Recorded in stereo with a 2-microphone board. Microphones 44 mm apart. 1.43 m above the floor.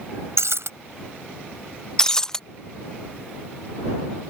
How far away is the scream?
No scream in this recording.